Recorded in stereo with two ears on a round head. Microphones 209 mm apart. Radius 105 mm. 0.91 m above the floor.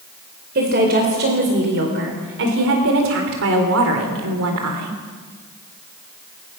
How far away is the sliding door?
I don't hear a sliding door.